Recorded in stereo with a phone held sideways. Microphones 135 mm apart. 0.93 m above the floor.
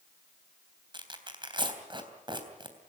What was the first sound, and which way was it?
Tearing paper, 35° right (ahead or behind).